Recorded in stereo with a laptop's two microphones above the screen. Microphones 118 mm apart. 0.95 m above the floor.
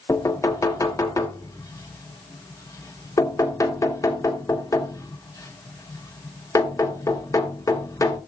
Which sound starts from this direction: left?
Knocking, at 0.1 s.